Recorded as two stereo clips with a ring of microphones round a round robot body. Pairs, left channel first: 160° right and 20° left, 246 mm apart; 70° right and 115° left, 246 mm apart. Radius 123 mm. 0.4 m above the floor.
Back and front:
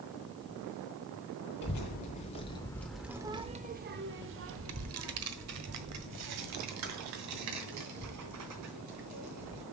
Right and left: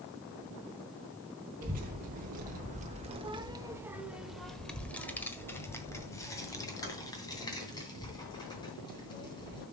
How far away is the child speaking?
About 1.0 m.